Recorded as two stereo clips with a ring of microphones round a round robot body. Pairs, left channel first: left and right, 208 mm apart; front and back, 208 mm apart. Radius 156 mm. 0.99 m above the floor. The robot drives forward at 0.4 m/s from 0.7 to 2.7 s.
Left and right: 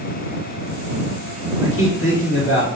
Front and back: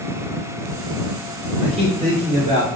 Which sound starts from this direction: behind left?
A man speaking, at 1.6 s.